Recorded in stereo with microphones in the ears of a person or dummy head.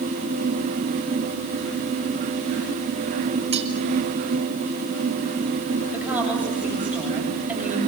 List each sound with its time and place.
3.5 s cutlery clinking: 30° right (ahead or behind), 4 m
5.9 s a woman speaking: 10° right (ahead or behind), 8.5 m